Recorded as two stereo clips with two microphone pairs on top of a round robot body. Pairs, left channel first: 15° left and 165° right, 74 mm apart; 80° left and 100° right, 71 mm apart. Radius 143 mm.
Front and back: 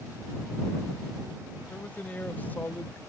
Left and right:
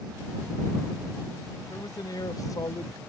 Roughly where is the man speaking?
Left.